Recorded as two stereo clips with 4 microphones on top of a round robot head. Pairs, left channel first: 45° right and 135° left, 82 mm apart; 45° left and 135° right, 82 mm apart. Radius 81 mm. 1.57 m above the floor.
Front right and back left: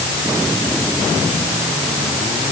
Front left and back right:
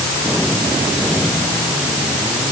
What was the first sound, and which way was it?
Only background noise.